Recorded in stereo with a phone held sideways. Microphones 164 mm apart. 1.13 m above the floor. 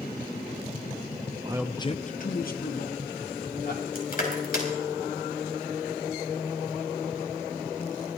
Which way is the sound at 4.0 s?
65° left (ahead or behind).